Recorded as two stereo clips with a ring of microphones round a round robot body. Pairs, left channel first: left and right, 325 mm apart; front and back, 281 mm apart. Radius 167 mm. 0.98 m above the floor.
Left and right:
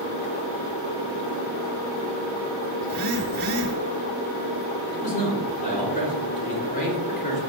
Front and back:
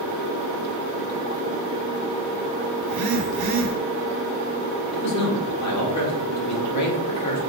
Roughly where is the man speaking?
Ahead left.